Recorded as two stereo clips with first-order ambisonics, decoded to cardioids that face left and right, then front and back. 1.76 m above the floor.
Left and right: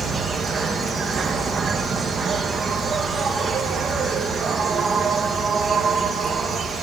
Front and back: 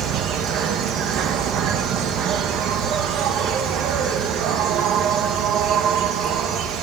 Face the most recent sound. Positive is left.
turn(degrees=-155)